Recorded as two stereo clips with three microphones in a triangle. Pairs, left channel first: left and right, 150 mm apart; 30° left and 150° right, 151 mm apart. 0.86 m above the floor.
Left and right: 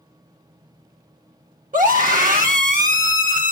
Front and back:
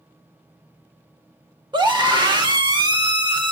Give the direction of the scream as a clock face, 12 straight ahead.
3 o'clock.